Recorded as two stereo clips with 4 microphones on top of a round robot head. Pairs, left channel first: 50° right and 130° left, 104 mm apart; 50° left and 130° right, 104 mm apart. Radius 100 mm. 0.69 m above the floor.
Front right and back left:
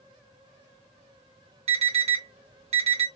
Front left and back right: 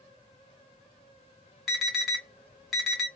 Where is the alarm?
140° left, 2.5 m.